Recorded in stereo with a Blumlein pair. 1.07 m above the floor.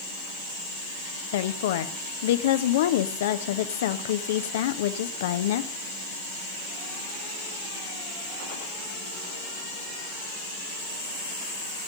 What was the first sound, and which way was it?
A woman speaking, 55° left.